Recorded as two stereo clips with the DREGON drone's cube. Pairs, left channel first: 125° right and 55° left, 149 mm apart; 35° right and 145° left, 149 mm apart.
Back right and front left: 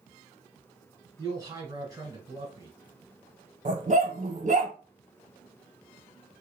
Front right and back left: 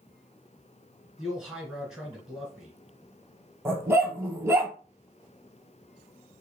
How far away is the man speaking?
About 1.3 m.